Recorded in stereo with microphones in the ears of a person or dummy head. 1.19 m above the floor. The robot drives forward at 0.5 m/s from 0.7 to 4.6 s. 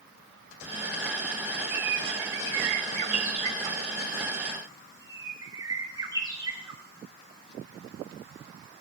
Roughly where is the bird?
Right.